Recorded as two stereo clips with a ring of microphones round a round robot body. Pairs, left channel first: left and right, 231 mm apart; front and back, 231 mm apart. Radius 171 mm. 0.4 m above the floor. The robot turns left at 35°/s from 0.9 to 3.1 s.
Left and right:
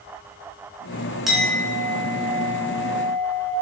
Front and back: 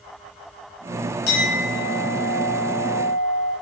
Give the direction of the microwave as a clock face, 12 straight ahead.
I don't hear a microwave.